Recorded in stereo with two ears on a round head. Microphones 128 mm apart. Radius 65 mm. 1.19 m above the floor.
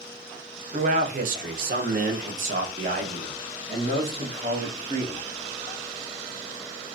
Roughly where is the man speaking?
Right.